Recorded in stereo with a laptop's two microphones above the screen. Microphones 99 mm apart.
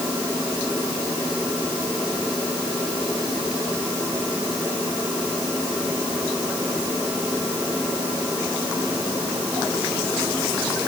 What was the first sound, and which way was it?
Only background noise.